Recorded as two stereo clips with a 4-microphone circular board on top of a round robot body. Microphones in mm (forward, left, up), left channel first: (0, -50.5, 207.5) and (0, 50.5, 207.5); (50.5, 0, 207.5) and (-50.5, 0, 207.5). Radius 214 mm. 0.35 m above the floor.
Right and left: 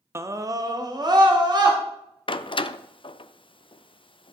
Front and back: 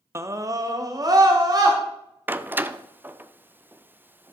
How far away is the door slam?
About 0.7 m.